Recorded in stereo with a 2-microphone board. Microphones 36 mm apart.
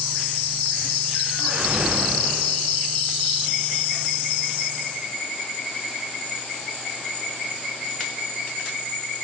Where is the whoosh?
75° right (ahead or behind), 3.5 m.